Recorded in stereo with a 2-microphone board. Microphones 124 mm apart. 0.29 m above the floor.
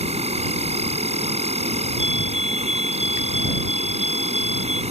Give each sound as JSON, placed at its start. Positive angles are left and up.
{"t": 0.0, "sound": "an insect", "side_deg": -60}
{"t": 2.0, "sound": "a fire alarm", "side_deg": -60}